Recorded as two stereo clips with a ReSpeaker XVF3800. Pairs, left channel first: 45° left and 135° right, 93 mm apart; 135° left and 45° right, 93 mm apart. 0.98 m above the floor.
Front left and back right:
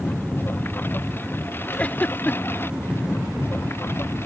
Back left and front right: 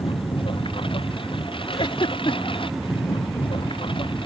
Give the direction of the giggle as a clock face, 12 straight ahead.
8 o'clock.